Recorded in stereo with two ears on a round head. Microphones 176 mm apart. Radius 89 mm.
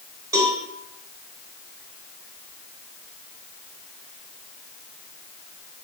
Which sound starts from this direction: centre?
A cowbell, at 0.3 s.